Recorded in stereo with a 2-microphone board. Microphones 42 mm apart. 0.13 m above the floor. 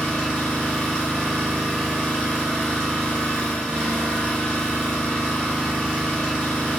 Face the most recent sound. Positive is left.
turn(degrees=15)  # may be behind; listen again after turning